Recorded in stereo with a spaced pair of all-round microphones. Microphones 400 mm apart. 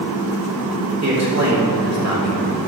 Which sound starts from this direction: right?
A man speaking, at 1.0 s.